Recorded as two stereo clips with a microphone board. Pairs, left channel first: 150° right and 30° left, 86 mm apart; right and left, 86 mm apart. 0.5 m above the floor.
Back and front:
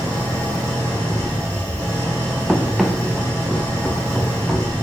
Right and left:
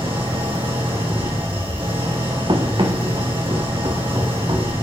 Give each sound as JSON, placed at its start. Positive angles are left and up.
{"t": 0.0, "sound": "an engine running", "azimuth_deg": 85, "distance_m": 9.5}
{"t": 2.5, "sound": "running footsteps", "azimuth_deg": 120, "distance_m": 3.0}